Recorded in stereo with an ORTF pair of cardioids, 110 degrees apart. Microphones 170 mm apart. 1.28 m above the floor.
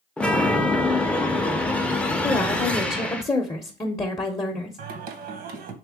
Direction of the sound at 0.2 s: 5° left.